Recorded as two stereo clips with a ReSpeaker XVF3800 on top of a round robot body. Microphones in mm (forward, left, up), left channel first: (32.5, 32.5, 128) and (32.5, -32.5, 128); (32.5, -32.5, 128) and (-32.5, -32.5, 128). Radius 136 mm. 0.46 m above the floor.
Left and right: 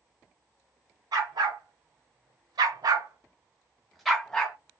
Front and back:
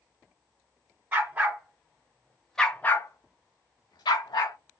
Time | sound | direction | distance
1.1 | a dog barking | 115° right | 1.4 m